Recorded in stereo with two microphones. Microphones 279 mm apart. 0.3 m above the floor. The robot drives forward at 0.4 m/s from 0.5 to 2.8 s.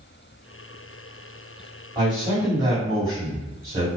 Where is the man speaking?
15° right (ahead or behind), 2.0 m.